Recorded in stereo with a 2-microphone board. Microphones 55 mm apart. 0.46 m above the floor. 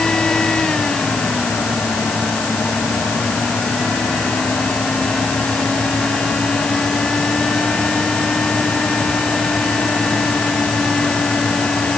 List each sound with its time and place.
Only background noise.